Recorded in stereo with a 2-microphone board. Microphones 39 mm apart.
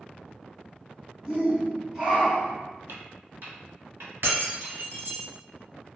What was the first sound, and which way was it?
A shout, 20° right (ahead or behind).